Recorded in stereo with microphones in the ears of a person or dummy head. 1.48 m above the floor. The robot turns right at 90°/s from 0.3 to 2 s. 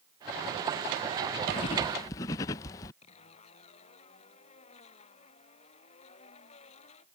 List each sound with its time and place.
1.5 s writing: 25° left (ahead or behind); by 2.9 s 15° left (ahead or behind)
3.0 s a zipper: 35° left (ahead or behind)